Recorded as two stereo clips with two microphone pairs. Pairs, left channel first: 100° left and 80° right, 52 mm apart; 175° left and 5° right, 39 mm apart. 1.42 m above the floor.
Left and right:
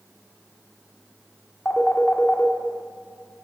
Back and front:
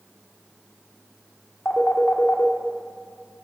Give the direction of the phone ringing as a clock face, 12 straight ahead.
7 o'clock.